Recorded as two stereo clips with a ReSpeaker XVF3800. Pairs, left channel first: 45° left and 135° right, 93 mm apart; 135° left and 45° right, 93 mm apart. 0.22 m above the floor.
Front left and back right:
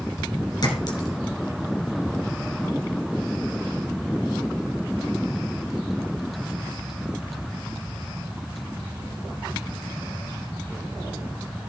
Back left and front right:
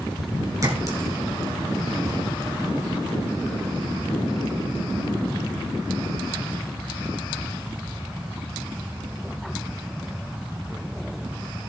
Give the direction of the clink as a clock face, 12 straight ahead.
12 o'clock.